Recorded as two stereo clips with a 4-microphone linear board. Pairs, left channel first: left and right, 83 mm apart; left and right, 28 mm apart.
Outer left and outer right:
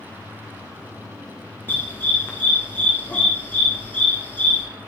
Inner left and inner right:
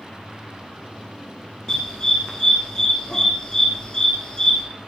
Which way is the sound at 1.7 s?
25° left (ahead or behind).